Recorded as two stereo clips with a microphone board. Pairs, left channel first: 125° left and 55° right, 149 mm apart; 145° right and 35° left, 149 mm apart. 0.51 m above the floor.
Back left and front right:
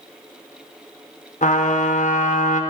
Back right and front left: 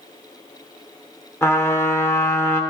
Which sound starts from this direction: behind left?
A trumpet, at 1.4 s.